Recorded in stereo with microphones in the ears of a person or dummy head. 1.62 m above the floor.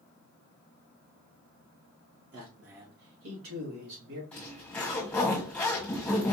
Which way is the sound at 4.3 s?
10° left (ahead or behind).